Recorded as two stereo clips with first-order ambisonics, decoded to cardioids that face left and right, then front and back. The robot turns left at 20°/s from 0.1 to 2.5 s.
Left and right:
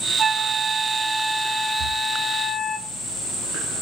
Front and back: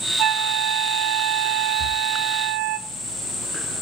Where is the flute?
155° right, 0.7 m; by 2.8 s 160° left, 0.7 m.